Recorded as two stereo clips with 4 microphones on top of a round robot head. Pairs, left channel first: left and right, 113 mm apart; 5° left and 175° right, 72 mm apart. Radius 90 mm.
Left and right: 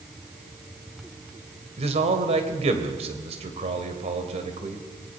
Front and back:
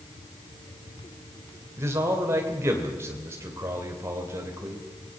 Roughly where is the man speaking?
Behind right.